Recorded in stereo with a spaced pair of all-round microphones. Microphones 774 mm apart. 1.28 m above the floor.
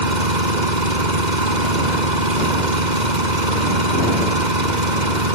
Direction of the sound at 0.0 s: 70° right (ahead or behind).